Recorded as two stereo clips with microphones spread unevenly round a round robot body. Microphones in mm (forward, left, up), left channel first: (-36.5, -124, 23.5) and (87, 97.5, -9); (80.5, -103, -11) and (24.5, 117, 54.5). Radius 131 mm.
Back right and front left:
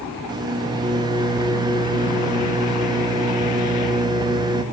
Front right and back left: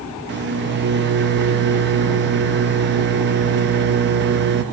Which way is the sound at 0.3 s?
95° left.